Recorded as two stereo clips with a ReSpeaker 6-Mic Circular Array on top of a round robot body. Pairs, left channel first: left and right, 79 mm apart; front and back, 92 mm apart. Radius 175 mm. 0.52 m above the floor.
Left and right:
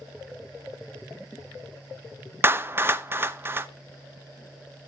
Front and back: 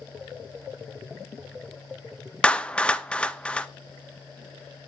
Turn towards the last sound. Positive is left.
turn(degrees=-65)